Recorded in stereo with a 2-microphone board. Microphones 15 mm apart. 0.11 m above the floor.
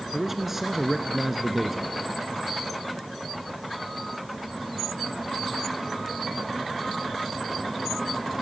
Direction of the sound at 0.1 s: 15° right (ahead or behind).